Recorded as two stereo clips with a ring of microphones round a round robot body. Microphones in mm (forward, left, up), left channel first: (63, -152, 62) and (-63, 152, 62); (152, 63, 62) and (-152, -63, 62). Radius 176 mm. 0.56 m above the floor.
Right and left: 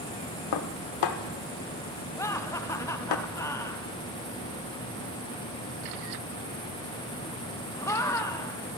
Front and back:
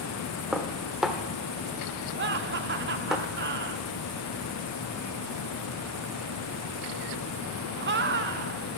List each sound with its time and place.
0.5 s dishes clattering: 70° right, 1.1 m
2.2 s laughter: 140° right, 1.0 m